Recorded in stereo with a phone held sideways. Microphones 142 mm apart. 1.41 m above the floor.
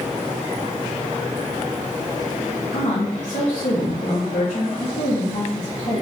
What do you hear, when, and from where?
2.7 s a woman speaking: 75° left (ahead or behind), 3.5 m